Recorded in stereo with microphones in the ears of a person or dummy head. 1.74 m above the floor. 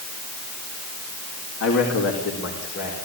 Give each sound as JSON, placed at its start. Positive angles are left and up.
{"t": 1.6, "sound": "a man speaking", "side_deg": 80, "distance_m": 4.0}